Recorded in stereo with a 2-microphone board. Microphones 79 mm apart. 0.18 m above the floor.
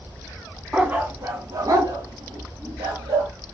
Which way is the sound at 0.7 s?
10° right (ahead or behind).